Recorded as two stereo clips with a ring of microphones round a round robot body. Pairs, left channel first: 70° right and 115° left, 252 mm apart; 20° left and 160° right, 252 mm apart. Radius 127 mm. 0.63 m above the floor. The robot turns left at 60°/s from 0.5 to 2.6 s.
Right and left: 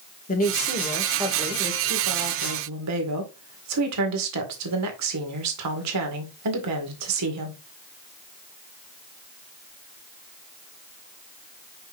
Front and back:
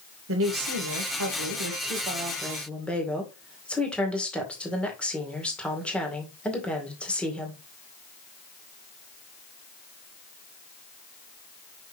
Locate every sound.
0.3 s a woman speaking: 125° right, 2 m; by 7.6 s 110° left, 2 m